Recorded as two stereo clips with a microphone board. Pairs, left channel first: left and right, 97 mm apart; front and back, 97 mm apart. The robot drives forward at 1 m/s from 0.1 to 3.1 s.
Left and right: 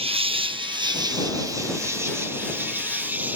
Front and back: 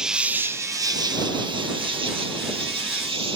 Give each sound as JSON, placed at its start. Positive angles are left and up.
{"t": 0.0, "sound": "an insect", "azimuth_deg": -95}